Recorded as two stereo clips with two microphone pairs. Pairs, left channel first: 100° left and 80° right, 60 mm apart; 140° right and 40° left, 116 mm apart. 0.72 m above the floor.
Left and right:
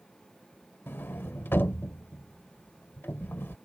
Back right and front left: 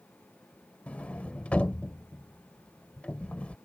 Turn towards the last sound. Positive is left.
turn(degrees=145)